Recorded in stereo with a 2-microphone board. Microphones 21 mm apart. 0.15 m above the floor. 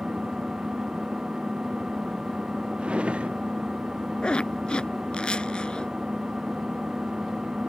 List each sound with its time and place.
0.0 s an engine running: 40° right (ahead or behind)
2.8 s a drawer: 75° right (ahead or behind)
4.2 s a zipper: 55° left (ahead or behind)